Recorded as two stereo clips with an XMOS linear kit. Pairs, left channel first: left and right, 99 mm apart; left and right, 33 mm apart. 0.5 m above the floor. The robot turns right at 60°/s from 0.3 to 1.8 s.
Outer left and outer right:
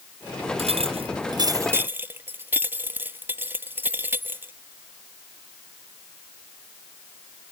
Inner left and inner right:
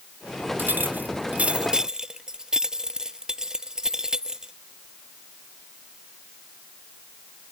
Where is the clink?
95° right; by 4.5 s 20° right.